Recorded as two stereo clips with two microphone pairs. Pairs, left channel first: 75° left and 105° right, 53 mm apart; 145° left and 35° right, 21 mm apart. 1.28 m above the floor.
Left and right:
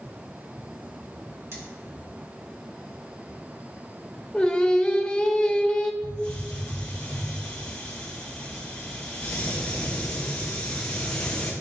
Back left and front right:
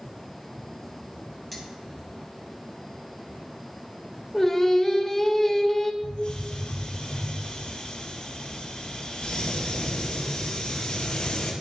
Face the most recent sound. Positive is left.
turn(degrees=145)